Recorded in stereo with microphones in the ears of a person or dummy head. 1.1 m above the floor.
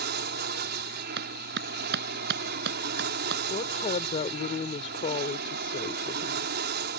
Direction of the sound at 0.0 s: 50° right (ahead or behind).